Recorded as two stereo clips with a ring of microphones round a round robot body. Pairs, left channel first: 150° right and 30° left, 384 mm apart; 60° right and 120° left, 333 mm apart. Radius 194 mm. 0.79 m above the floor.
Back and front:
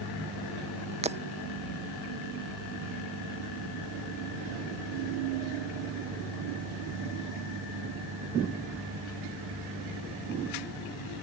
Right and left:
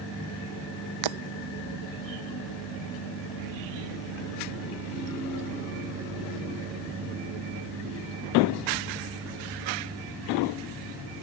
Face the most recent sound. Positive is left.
turn(degrees=105)